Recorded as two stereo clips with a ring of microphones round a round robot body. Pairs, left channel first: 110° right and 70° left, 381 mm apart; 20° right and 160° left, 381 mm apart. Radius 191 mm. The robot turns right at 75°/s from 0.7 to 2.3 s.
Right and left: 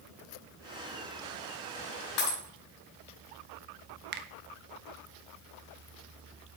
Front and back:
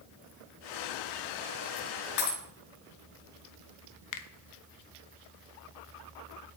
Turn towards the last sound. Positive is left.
turn(degrees=10)